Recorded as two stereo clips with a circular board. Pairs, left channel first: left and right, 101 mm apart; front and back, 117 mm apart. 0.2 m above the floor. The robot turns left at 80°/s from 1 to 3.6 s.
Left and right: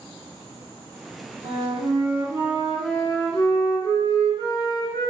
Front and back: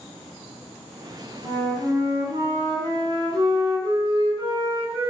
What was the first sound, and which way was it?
A flute, 65° right.